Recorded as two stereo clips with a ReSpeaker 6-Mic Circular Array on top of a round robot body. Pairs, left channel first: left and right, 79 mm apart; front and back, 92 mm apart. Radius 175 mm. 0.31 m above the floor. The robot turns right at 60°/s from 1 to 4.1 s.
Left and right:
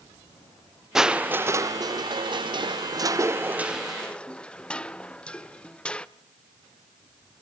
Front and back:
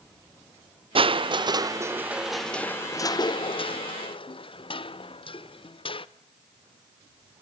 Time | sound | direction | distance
0.9 | crushing | 175° right | 0.8 m